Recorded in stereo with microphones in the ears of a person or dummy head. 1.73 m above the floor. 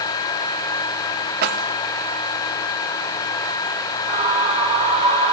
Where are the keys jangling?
50° right (ahead or behind), 1.7 m.